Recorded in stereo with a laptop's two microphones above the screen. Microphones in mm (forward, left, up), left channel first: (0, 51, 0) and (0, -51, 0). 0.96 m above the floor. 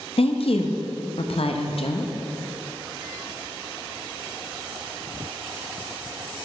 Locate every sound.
0.2 s a woman speaking: 65° left (ahead or behind), 0.8 m